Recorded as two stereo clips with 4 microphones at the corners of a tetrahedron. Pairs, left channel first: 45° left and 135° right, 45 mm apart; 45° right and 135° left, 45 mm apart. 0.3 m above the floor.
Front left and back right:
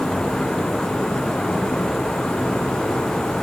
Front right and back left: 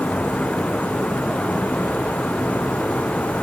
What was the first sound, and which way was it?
Only background noise.